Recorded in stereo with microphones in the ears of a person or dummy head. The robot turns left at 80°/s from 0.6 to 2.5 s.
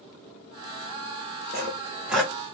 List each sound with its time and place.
1.5 s sawing: 45° right (ahead or behind), 1.2 m; by 2.3 s 15° left (ahead or behind), 1.2 m